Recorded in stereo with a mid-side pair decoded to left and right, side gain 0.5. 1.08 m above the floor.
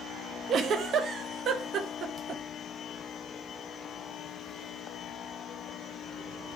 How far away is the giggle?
About 0.9 m.